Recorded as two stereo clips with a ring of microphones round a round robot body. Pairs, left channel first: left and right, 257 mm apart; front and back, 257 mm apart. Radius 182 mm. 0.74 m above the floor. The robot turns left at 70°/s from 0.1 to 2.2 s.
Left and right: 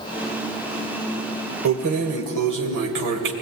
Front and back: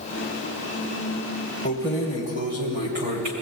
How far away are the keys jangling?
About 2 m.